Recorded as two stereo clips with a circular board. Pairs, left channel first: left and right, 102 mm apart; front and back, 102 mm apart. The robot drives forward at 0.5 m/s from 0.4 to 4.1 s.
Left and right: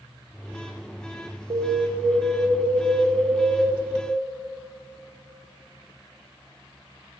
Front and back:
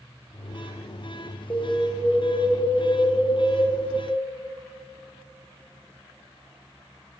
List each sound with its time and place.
1.5 s an alarm: 65° right, 1.9 m; by 3.8 s 105° right, 1.8 m